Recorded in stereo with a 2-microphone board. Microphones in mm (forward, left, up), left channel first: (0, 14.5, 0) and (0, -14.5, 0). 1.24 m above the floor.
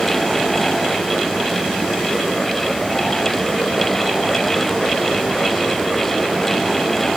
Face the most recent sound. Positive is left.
No sound to turn to.